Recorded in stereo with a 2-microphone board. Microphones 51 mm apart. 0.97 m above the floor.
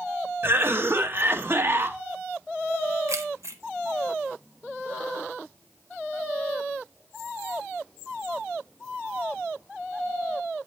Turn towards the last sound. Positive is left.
turn(degrees=-70)  # may be behind; listen again after turning